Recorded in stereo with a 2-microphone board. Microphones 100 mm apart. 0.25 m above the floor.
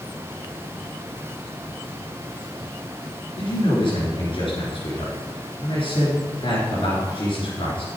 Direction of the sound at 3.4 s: 60° left (ahead or behind).